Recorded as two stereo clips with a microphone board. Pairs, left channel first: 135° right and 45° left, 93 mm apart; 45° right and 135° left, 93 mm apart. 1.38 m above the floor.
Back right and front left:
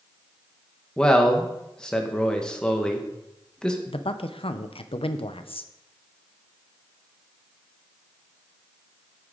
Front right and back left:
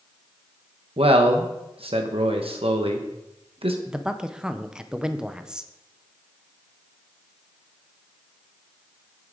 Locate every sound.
1.0 s a man speaking: 145° left, 1.1 m
3.9 s a man speaking: 140° right, 0.7 m